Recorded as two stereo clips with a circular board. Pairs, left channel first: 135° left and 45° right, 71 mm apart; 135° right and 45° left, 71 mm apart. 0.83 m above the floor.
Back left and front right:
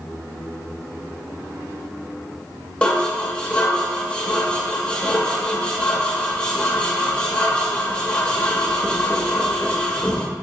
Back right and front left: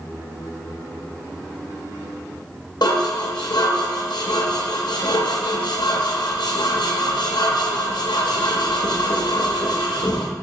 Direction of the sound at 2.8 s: 150° right.